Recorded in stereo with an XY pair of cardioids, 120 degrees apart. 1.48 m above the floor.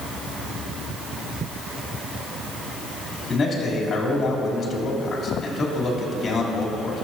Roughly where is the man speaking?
Ahead left.